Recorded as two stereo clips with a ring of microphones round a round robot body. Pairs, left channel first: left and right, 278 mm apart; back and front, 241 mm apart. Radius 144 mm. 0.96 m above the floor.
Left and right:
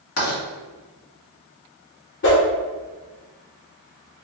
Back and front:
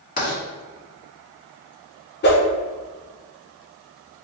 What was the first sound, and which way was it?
Writing, 125° left.